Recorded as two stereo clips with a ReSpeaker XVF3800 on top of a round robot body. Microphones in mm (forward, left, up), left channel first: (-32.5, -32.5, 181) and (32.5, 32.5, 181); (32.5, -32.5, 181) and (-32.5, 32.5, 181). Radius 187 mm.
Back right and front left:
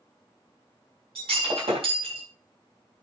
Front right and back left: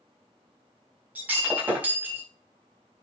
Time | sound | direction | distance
1.1 | breaking glass | 60° left | 4.5 m